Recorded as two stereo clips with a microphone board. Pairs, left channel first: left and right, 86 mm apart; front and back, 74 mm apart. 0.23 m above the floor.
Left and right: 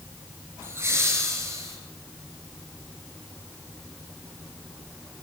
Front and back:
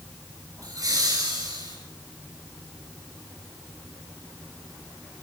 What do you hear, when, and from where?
0.6 s laughter: 150° right, 3 m; by 1.8 s 145° right, 4.5 m